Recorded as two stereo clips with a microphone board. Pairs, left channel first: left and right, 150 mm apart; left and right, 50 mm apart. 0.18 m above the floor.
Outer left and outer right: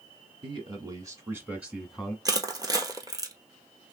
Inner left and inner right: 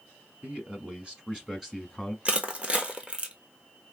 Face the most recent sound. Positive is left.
turn(degrees=-25)  # may be behind; listen again after turning